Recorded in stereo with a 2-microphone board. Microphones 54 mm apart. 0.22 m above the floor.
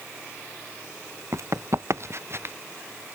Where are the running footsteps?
60° right (ahead or behind); by 2.5 s 50° right (ahead or behind).